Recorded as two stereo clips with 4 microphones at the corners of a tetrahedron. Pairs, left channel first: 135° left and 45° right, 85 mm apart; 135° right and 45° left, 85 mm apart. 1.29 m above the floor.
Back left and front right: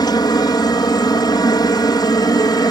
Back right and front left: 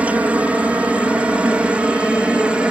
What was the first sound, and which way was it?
A helicopter, 115° left.